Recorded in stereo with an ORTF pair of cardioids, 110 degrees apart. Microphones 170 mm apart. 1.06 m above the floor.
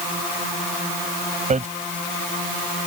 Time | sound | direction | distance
1.5 | hammering | 45° right | ?